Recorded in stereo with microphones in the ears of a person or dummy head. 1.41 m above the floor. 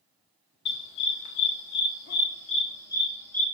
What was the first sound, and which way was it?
A dog barking, 60° left (ahead or behind).